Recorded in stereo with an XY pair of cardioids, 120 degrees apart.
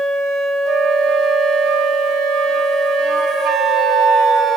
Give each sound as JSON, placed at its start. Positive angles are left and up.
{"t": 0.7, "sound": "a flute", "azimuth_deg": -65, "distance_m": 1.2}